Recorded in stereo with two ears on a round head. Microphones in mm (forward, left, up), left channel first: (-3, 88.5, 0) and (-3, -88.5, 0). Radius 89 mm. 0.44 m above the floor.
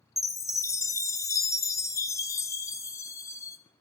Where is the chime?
15° left (ahead or behind), 0.7 m.